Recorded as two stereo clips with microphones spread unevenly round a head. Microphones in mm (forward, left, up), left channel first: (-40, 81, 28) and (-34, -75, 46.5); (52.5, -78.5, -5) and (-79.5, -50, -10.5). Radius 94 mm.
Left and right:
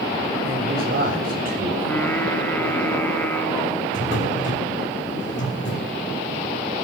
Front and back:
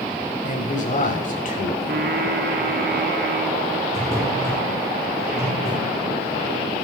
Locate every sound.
0.5 s a man speaking: 45° right, 8.5 m; by 1.7 s 40° right, 8.5 m
1.8 s singing: 170° left, 4 m
3.9 s a drawer: 65° left, 6.5 m